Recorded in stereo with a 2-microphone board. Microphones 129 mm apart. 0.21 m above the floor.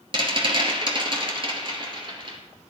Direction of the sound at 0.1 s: 40° right (ahead or behind).